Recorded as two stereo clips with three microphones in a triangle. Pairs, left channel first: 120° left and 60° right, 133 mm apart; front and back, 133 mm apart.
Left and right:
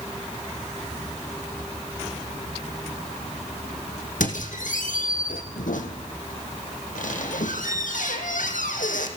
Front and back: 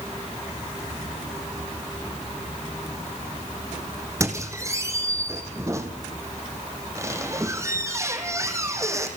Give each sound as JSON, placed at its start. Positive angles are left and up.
{"t": 4.2, "sound": "a squeak", "azimuth_deg": 115, "distance_m": 3.0}